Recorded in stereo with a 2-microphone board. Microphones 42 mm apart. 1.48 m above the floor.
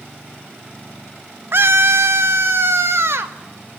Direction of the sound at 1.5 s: 60° right (ahead or behind).